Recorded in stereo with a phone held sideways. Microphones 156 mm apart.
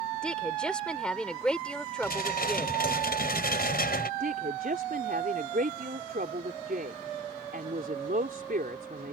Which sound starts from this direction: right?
A woman speaking, at 4.2 s.